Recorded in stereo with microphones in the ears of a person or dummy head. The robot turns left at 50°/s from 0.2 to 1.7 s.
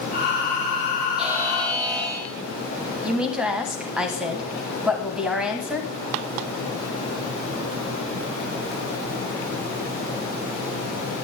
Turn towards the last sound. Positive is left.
turn(degrees=-5)  # may be behind; listen again after turning